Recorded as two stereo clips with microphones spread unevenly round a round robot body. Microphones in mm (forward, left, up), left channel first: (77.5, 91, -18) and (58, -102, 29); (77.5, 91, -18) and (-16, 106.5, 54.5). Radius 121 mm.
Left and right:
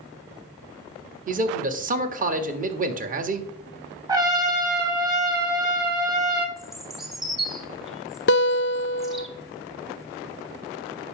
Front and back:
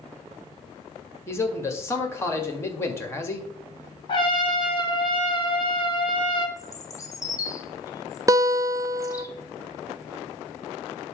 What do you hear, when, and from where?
1.3 s a man speaking: 45° right, 1.7 m
4.1 s a trumpet: 25° right, 3 m
6.6 s a bird: straight ahead, 1.7 m
8.3 s a guitar: 95° left, 0.6 m